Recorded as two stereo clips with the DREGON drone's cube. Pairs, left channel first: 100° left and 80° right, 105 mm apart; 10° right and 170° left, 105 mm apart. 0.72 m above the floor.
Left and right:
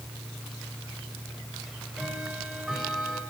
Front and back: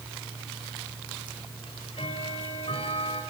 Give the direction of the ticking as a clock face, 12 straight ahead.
12 o'clock.